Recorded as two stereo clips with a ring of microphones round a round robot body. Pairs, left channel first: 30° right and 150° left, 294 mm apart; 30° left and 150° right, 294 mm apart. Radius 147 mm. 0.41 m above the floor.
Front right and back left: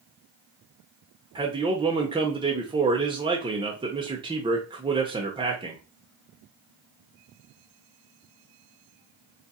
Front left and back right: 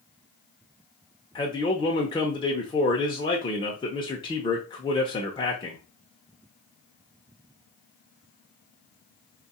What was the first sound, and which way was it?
A man speaking, 90° left.